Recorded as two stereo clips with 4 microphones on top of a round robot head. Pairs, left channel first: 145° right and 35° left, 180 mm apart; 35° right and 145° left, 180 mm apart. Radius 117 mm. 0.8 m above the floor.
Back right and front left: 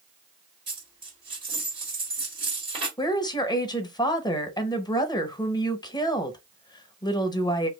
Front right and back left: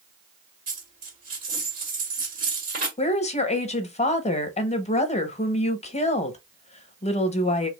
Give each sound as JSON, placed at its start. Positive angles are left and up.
{"t": 0.7, "sound": "a dropped coin", "azimuth_deg": 100, "distance_m": 1.7}
{"t": 3.0, "sound": "a woman speaking", "azimuth_deg": -80, "distance_m": 0.8}